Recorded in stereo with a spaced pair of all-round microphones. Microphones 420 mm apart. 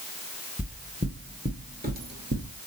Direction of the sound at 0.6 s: Centre (ahead or behind).